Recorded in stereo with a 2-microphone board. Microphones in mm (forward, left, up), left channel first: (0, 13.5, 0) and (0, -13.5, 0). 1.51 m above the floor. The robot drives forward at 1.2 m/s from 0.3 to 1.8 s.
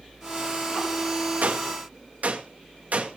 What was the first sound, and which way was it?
A gunshot, 80° right.